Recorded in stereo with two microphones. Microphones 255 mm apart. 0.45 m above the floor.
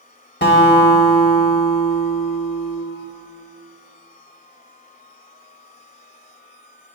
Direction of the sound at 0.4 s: 45° left (ahead or behind).